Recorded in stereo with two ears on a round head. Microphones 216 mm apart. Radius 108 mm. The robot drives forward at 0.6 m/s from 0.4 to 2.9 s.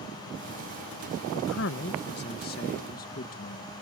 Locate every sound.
1.3 s a man speaking: 60° left (ahead or behind); by 3.7 s 40° left (ahead or behind)